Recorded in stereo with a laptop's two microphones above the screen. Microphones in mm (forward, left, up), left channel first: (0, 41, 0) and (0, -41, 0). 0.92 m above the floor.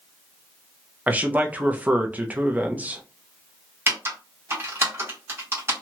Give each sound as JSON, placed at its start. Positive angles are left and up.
{"t": 1.1, "sound": "a man speaking", "side_deg": -20, "distance_m": 0.5}
{"t": 3.9, "sound": "typing on a keyboard", "side_deg": -30, "distance_m": 1.3}